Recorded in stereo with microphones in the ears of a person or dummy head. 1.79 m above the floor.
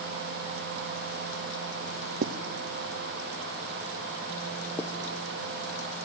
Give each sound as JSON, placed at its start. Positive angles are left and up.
{"t": 2.2, "sound": "writing", "side_deg": -55, "distance_m": 0.6}
{"t": 4.8, "sound": "writing", "side_deg": 20, "distance_m": 1.0}